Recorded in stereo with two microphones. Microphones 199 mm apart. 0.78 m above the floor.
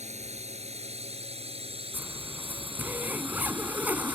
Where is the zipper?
10° right (ahead or behind).